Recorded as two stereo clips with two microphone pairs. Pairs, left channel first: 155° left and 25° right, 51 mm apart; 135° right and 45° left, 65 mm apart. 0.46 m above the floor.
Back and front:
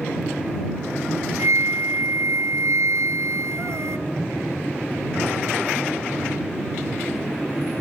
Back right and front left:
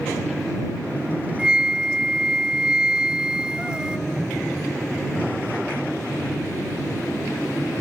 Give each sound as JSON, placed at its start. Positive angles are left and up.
{"t": 1.4, "sound": "a flute", "azimuth_deg": -30}